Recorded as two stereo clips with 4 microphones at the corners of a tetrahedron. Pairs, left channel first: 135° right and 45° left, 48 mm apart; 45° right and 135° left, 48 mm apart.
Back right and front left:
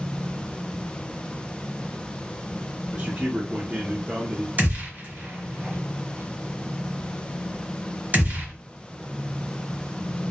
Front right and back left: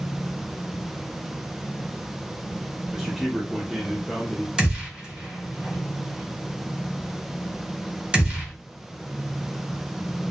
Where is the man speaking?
60° left, 0.5 m.